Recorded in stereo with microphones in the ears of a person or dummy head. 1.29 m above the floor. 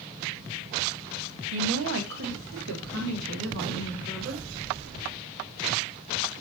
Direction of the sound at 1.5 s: 70° right (ahead or behind).